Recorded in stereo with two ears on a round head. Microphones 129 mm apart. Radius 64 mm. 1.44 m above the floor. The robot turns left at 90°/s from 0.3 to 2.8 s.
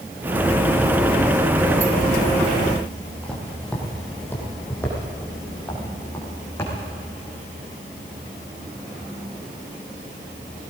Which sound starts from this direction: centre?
Footsteps, at 3.2 s.